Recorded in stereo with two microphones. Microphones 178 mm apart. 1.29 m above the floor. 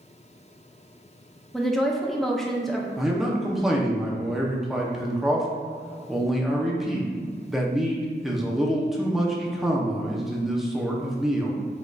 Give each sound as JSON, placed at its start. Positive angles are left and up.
{"t": 1.5, "sound": "a woman speaking", "side_deg": 0, "distance_m": 0.6}
{"t": 3.0, "sound": "a man speaking", "side_deg": 0, "distance_m": 0.7}